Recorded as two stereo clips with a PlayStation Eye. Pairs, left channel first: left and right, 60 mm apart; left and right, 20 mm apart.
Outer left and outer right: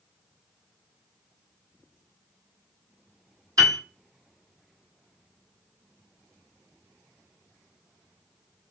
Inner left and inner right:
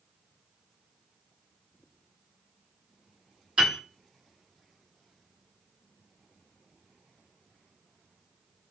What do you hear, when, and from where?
3.6 s a piano: 70° right (ahead or behind), 1.1 m